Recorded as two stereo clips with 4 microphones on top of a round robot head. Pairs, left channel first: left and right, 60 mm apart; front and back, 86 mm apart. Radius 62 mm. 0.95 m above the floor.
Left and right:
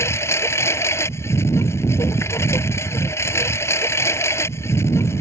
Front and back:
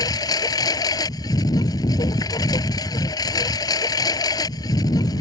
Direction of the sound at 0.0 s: 45° left.